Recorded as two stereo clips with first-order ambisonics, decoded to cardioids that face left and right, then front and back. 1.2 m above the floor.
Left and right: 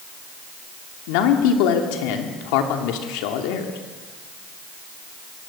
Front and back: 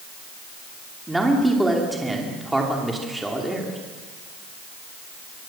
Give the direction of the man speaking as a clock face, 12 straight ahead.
9 o'clock.